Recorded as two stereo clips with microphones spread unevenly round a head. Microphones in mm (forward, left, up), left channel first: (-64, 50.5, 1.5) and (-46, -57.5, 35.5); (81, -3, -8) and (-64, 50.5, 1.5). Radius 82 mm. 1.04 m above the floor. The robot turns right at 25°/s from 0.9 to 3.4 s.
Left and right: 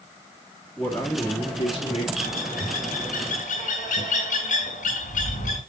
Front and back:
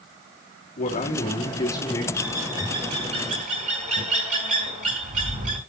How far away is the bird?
About 3 m.